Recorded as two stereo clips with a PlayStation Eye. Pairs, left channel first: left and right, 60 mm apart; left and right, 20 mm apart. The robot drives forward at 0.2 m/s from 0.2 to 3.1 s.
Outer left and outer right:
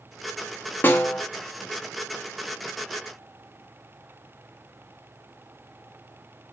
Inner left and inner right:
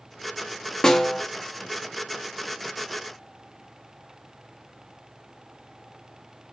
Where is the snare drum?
30° left (ahead or behind), 0.7 m.